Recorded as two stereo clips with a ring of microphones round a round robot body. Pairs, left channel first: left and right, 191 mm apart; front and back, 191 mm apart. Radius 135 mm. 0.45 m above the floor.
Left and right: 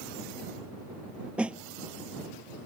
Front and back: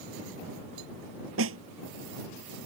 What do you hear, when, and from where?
1.4 s a snare drum: 175° right